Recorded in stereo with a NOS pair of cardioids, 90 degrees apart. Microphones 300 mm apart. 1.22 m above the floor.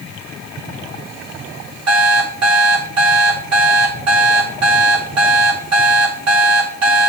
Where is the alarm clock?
60° right, 2.5 m.